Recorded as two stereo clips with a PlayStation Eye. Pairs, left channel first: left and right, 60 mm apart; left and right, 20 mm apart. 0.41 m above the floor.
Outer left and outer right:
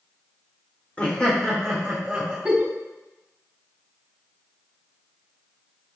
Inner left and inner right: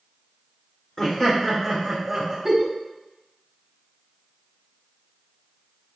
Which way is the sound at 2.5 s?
20° right (ahead or behind).